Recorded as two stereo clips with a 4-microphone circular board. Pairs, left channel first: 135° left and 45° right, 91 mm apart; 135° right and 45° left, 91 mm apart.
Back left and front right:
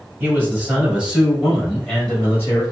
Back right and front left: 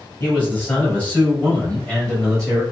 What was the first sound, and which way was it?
A man speaking, 85° right.